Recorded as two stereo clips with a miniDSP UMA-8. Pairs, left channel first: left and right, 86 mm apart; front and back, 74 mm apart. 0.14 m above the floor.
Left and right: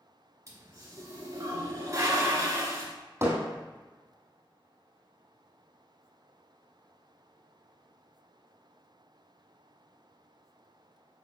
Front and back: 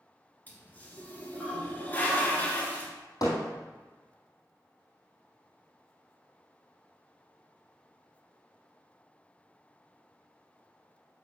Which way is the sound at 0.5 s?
55° right.